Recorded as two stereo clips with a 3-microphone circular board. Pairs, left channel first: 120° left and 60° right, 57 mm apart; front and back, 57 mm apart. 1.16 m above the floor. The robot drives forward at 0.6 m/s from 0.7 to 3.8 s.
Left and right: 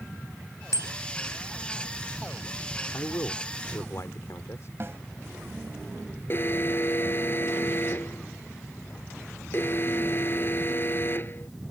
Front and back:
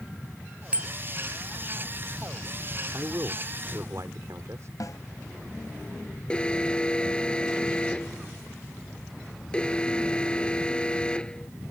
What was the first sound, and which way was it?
A bicycle bell, 110° left.